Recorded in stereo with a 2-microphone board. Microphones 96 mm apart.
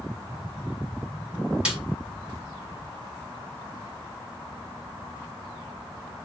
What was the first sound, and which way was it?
A snare drum, 10° right (ahead or behind).